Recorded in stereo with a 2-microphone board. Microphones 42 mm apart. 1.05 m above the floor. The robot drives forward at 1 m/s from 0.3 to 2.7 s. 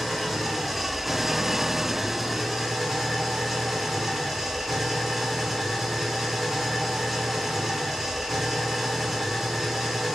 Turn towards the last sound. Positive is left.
turn(degrees=0)  # may be behind; listen again after turning